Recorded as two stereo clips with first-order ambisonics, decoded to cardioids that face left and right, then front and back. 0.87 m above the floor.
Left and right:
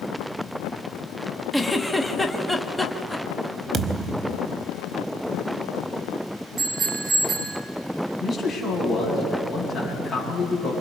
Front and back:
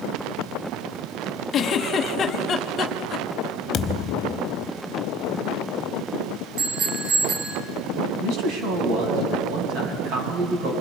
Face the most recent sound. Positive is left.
turn(degrees=160)